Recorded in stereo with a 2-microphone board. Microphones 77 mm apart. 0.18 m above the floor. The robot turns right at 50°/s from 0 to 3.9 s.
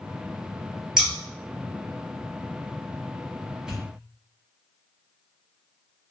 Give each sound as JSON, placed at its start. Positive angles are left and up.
{"t": 1.0, "sound": "scissors", "side_deg": -5, "distance_m": 1.2}
{"t": 3.7, "sound": "a pop", "side_deg": -10, "distance_m": 1.3}